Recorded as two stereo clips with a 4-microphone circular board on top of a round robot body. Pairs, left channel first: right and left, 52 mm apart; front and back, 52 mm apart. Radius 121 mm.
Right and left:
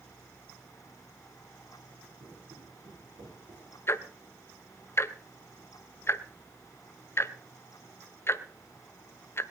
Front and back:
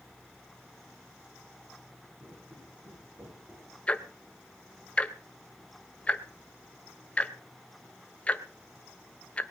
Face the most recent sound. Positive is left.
turn(degrees=-65)